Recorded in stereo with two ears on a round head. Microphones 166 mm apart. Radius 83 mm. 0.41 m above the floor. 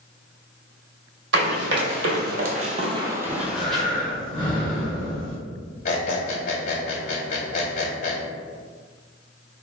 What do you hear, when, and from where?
1.3 s running footsteps: 65° right (ahead or behind), 0.9 m; by 3.8 s 5° left (ahead or behind), 0.8 m
3.3 s breathing: 30° left (ahead or behind), 1.2 m
5.8 s a squeak: 45° left (ahead or behind), 1.2 m